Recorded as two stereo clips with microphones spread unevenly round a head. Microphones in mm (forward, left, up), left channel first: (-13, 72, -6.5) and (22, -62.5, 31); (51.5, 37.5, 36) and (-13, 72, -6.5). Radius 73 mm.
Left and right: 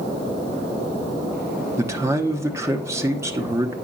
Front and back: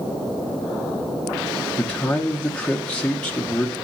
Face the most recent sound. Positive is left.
turn(degrees=-155)